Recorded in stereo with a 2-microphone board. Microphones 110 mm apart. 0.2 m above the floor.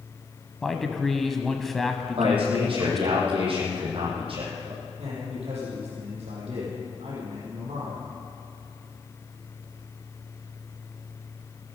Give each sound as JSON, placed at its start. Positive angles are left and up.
{"t": 0.6, "sound": "a man speaking", "side_deg": 0, "distance_m": 1.2}
{"t": 2.2, "sound": "a man speaking", "side_deg": -55, "distance_m": 7.0}
{"t": 5.0, "sound": "a man speaking", "side_deg": -75, "distance_m": 6.5}